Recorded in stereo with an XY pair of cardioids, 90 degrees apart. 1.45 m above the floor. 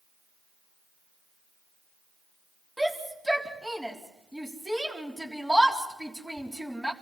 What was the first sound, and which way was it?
A shout, 5° right.